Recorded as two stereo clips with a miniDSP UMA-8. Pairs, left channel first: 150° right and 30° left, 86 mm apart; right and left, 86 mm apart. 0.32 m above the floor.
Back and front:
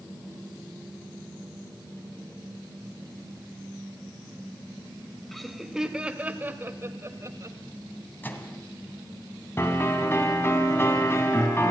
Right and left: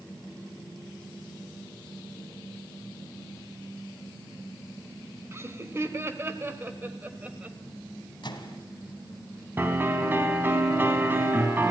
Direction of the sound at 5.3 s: 125° left.